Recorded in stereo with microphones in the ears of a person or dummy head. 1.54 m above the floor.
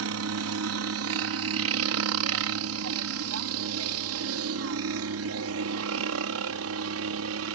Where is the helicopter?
65° right (ahead or behind); by 7.5 s 70° right (ahead or behind).